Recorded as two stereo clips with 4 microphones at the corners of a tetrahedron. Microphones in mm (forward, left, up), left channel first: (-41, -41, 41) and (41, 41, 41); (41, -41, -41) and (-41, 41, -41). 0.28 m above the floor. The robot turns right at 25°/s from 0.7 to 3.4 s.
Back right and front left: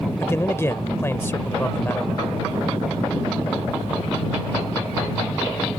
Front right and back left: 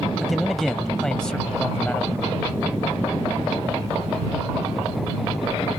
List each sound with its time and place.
0.2 s a man speaking: 130° right; by 2.2 s 95° right